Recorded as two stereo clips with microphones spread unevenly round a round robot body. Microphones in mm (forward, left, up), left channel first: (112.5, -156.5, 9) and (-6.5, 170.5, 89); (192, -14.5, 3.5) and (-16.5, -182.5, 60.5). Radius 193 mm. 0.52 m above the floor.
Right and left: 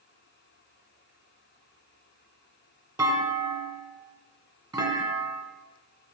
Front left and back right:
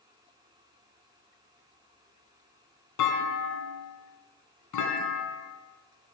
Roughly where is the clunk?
Ahead left.